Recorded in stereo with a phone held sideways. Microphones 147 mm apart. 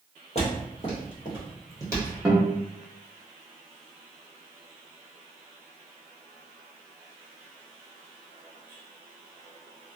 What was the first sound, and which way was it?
Footsteps, 45° left (ahead or behind).